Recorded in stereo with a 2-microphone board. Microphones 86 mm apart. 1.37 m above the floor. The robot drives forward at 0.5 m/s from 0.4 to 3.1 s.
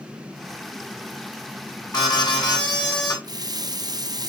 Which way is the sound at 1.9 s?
50° left (ahead or behind).